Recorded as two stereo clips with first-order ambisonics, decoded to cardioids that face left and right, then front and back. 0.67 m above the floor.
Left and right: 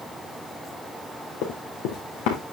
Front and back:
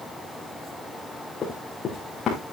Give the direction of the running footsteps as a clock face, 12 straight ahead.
10 o'clock.